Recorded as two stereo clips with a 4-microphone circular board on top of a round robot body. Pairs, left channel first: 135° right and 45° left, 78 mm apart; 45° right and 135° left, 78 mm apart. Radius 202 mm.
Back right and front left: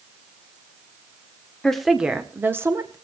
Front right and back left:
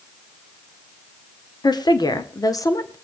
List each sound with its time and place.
1.6 s a woman speaking: 55° right, 1.9 m; by 3.0 s straight ahead, 2.5 m